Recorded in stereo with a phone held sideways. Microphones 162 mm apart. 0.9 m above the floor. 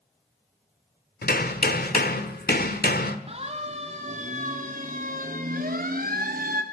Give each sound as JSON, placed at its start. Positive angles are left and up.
{"t": 1.2, "sound": "hammering", "side_deg": 70, "distance_m": 1.9}
{"t": 3.3, "sound": "a siren", "side_deg": -40, "distance_m": 3.0}